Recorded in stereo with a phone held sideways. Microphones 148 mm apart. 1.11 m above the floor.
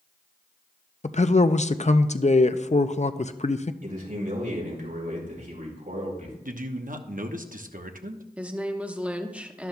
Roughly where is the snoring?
I don't hear snoring.